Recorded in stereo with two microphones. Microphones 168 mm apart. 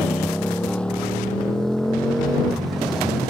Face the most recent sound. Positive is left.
turn(degrees=0)  # may be behind; listen again after turning